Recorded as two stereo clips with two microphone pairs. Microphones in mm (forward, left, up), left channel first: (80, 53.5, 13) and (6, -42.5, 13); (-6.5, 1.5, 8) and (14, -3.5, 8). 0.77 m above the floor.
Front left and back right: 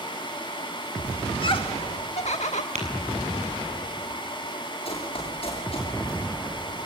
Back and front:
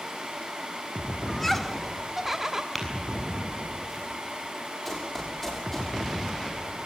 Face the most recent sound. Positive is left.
turn(degrees=90)